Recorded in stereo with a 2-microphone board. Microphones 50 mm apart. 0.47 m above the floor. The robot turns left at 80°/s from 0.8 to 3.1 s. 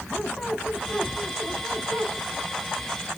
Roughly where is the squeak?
Ahead.